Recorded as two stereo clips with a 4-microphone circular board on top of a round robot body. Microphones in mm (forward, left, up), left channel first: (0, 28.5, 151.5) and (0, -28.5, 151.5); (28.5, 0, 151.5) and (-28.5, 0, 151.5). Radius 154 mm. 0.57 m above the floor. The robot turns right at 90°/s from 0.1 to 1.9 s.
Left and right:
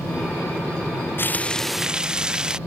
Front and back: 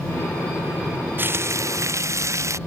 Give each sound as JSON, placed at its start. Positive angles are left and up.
{"t": 1.2, "sound": "frying", "azimuth_deg": 130}